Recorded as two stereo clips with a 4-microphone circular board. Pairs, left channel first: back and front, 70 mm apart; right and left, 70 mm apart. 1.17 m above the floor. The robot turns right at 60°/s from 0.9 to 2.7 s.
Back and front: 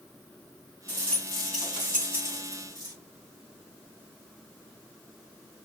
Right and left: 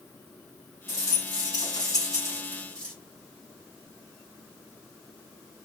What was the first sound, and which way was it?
A rattle, 120° right.